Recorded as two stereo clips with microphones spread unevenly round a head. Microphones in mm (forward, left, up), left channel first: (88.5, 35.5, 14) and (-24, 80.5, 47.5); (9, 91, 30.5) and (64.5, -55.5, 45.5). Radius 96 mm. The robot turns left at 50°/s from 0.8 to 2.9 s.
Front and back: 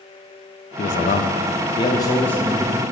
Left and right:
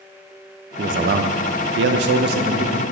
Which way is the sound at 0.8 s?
20° right.